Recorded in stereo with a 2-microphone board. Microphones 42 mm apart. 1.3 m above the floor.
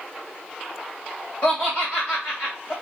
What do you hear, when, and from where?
1.4 s laughter: 50° left (ahead or behind), 1.8 m